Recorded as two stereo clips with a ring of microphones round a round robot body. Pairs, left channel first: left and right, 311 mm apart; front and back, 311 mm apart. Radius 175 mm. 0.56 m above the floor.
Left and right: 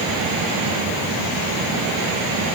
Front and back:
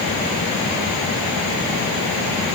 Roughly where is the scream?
I don't hear a scream.